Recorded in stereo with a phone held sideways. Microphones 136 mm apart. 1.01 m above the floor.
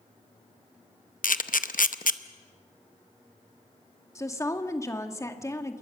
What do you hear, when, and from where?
1.2 s a camera shutter: 90° left, 0.7 m
4.2 s a woman speaking: 20° left (ahead or behind), 1.7 m